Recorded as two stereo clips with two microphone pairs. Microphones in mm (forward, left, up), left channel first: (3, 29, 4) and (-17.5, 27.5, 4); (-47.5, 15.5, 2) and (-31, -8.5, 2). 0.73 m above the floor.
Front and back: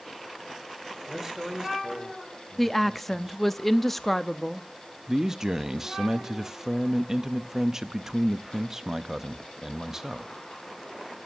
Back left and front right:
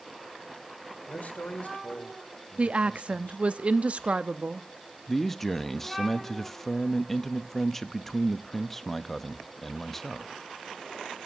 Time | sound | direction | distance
1.1 | a man speaking | 110° left | 2.5 m
2.6 | a woman speaking | 75° right | 0.6 m
5.1 | a man speaking | 175° right | 0.7 m